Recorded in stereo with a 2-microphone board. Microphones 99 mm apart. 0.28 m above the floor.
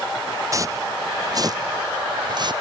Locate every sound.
0.5 s footsteps: 30° right (ahead or behind); by 2.5 s 45° right (ahead or behind)